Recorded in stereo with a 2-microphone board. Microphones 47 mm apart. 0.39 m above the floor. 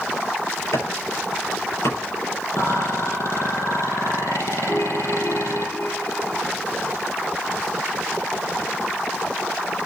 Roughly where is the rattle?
Left.